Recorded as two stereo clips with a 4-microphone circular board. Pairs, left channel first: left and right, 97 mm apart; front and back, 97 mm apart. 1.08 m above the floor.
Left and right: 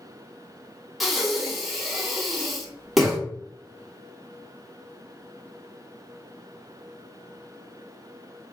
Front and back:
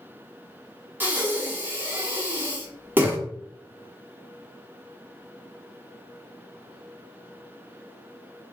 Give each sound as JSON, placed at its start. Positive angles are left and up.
{"t": 1.0, "sound": "breathing", "azimuth_deg": 180, "distance_m": 0.6}